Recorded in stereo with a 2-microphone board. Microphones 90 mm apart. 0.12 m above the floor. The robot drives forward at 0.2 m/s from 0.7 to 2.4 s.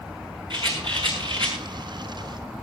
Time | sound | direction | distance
0.5 | a rattle | 60° right (ahead or behind) | 6 m